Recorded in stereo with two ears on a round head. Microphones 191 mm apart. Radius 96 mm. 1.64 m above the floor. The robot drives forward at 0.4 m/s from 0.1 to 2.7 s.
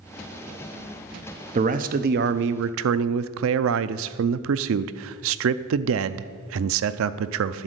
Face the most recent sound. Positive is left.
turn(degrees=-65)  # may be behind; listen again after turning